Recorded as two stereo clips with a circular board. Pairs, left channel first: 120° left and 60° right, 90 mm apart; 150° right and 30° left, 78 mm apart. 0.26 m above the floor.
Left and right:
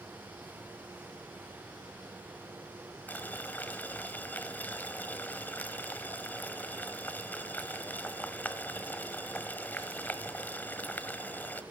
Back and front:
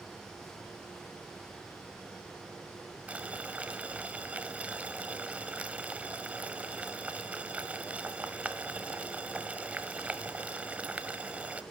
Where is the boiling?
80° left, 1.3 m.